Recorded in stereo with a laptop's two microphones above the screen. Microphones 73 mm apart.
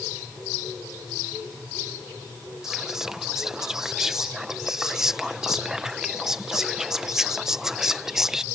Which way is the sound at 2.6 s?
5° right (ahead or behind).